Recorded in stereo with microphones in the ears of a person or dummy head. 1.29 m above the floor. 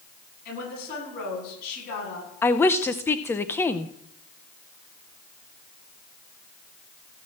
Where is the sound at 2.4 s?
15° left (ahead or behind), 0.7 m.